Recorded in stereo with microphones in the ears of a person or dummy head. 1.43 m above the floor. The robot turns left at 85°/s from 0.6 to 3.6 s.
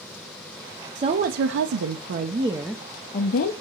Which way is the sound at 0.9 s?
25° right.